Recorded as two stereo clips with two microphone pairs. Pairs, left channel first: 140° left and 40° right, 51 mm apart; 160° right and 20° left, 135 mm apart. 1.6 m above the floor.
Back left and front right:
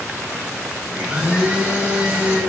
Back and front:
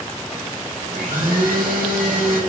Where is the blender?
30° left, 3.5 m.